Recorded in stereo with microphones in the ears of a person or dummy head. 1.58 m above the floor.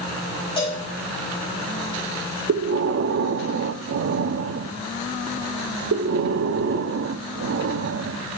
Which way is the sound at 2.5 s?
55° right (ahead or behind).